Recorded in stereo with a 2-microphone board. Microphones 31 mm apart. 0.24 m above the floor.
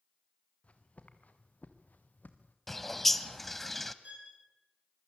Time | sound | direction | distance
0.6 | footsteps | 50° left (ahead or behind) | 3 m
2.7 | a bird | 10° left (ahead or behind) | 0.9 m
4.0 | a violin | 50° right (ahead or behind) | 6 m